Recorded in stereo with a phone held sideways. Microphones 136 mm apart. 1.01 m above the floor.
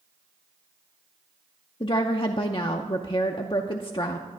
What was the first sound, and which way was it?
A woman speaking, 40° left (ahead or behind).